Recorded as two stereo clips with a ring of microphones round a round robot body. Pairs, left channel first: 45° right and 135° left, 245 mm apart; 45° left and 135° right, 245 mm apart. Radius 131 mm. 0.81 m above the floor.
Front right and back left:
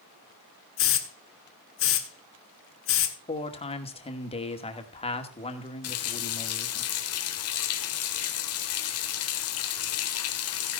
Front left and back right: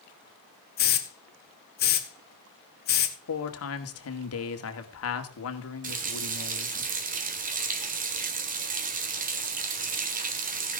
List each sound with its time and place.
0.8 s a hiss: 5° right, 1.6 m
3.3 s a man speaking: 20° left, 2 m
5.8 s a running tap: 75° right, 1.8 m